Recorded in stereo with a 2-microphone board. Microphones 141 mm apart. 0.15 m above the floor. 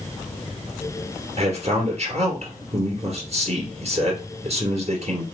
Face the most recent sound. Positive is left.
turn(degrees=-50)  # may be behind; listen again after turning